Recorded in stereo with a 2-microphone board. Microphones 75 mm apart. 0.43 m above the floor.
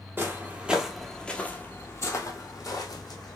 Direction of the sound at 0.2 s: 30° right (ahead or behind).